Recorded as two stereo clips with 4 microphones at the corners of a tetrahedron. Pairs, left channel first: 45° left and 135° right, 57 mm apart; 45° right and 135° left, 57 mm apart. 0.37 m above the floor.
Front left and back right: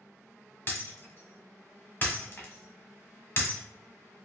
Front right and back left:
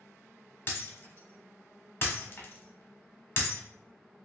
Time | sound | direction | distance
0.7 | breaking glass | straight ahead | 0.9 m